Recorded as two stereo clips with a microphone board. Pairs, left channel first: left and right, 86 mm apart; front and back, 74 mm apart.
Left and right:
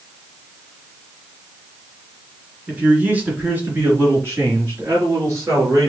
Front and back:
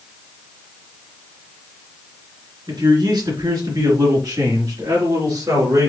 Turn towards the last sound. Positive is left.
turn(degrees=-145)